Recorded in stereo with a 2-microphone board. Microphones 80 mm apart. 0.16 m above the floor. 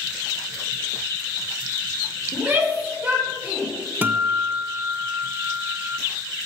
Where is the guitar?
25° right (ahead or behind), 0.5 m.